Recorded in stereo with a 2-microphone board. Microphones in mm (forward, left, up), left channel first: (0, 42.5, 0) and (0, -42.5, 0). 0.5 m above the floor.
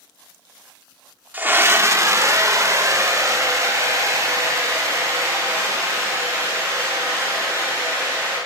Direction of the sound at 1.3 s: 20° right (ahead or behind).